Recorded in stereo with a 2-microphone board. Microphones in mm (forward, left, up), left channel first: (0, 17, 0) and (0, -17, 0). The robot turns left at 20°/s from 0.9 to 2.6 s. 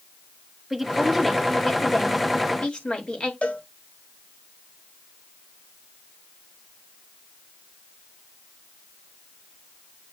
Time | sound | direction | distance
0.7 | a woman speaking | 175° right | 2.5 m
3.4 | a cowbell | 40° left (ahead or behind) | 1.8 m